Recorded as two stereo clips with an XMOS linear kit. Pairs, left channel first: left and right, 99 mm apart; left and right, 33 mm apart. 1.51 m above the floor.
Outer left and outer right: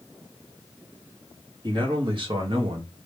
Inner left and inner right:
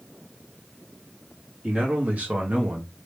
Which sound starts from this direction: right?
A man speaking, at 1.6 s.